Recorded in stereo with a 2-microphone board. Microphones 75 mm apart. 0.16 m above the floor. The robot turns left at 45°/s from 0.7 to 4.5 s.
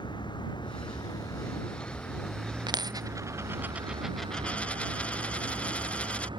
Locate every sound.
0.0 s a vehicle: 75° left; by 6.4 s 95° right
2.7 s a dropped coin: 115° right; by 6.3 s 165° left